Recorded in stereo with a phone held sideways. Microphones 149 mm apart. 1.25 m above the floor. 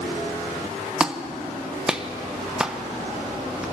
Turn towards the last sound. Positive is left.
turn(degrees=-5)  # may be behind; listen again after turning